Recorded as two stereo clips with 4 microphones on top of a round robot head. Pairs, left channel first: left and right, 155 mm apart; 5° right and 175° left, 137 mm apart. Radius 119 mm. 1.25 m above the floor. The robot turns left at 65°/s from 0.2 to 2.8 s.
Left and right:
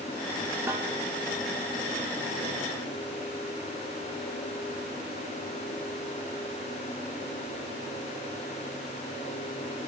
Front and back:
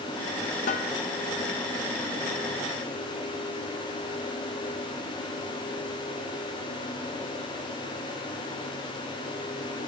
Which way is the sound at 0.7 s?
10° right.